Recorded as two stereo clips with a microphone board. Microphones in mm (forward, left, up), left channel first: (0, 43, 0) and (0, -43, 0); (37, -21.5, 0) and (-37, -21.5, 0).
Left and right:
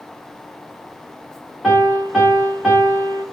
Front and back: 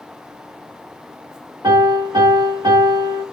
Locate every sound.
1.6 s a piano: straight behind, 5 m